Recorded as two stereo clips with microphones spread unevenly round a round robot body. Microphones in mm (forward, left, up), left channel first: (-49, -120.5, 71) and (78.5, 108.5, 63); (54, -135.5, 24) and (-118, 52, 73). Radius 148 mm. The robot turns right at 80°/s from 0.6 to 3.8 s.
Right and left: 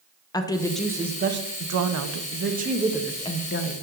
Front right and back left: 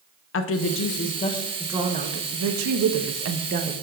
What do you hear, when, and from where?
0.3 s a woman speaking: 45° right, 0.8 m; by 3.7 s 150° right, 0.8 m